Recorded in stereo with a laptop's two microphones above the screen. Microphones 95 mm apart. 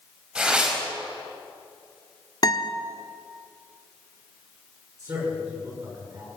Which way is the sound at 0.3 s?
10° right (ahead or behind).